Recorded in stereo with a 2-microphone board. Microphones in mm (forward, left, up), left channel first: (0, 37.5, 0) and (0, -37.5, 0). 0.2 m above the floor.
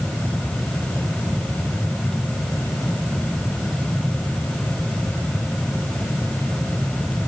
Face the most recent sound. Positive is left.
No sound to turn to.